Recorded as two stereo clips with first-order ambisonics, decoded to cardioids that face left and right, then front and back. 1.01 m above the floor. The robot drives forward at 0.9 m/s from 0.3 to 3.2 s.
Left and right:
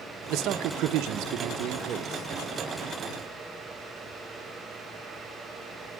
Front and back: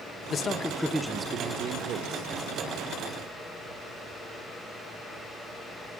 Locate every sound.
0.3 s a man speaking: 60° right, 1.1 m; by 2.3 s 150° right, 1.6 m